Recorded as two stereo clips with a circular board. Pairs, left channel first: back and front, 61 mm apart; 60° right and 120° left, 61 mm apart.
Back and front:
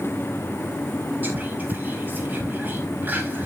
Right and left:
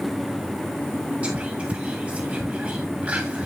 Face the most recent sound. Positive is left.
turn(degrees=55)